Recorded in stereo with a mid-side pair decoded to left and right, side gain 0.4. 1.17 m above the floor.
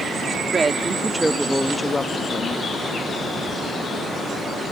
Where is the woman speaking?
40° right; by 2.7 s 55° left.